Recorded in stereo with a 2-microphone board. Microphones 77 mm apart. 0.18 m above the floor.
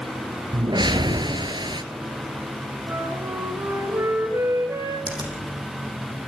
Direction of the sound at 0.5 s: 70° right (ahead or behind).